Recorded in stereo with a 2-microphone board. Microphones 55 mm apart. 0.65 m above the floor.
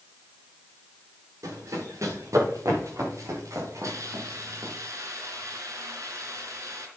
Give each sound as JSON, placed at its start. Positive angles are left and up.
{"t": 1.4, "sound": "running footsteps", "side_deg": -80, "distance_m": 7.0}
{"t": 3.8, "sound": "a hiss", "side_deg": -90, "distance_m": 3.5}